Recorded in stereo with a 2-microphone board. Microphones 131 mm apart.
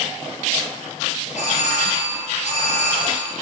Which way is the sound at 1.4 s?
65° left (ahead or behind).